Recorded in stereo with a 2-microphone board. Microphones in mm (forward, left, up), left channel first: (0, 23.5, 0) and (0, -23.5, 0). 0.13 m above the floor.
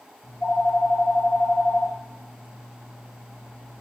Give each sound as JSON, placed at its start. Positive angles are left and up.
{"t": 0.2, "sound": "a phone ringing", "side_deg": 55, "distance_m": 3.0}